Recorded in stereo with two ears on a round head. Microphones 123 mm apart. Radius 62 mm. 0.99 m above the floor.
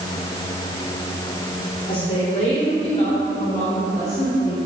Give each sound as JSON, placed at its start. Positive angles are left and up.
{"t": 1.9, "sound": "a woman speaking", "side_deg": 45, "distance_m": 3.5}